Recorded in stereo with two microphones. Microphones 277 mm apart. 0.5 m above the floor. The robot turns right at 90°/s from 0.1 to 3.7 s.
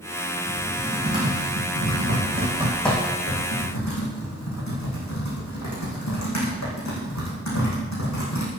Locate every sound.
0.5 s typing on a keyboard: 35° left (ahead or behind), 7 m; by 8.5 s 80° left, 7 m